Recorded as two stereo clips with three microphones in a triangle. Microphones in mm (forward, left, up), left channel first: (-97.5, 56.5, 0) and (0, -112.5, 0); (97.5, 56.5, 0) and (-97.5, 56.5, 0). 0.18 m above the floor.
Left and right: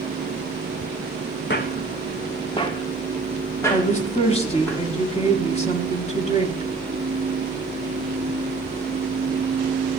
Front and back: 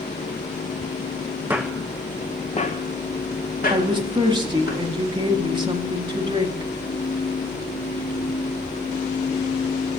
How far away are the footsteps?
About 0.7 m.